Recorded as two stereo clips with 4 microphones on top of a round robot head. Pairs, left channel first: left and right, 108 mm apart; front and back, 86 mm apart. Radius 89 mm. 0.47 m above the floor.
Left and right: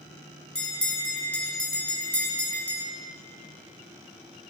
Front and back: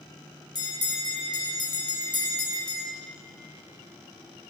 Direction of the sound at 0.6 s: 10° left.